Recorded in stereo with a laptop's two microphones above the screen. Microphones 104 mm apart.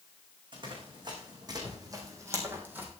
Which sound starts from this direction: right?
Running footsteps, at 0.5 s.